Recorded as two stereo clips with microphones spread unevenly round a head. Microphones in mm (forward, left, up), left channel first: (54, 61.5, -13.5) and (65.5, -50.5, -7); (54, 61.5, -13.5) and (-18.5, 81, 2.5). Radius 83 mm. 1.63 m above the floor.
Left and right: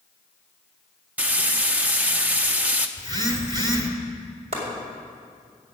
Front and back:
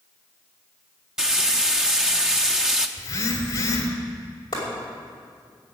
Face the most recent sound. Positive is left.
turn(degrees=-65)